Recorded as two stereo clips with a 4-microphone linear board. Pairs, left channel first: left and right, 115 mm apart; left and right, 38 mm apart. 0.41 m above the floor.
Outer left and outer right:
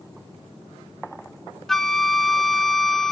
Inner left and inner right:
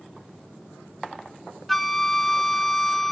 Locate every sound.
1.7 s a flute: 5° left (ahead or behind), 0.5 m